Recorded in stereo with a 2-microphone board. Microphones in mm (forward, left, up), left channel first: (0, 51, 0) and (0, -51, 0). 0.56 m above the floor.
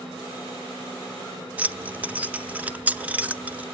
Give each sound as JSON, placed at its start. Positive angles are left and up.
{"t": 1.6, "sound": "keys jangling", "side_deg": -15, "distance_m": 0.6}